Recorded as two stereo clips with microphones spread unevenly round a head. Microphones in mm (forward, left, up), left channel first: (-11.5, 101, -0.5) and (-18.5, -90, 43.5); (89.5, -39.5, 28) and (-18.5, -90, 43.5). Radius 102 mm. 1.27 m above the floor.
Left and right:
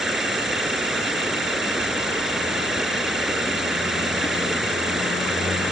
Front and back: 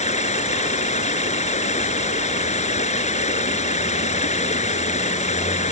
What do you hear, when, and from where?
0.0 s running water: 5° right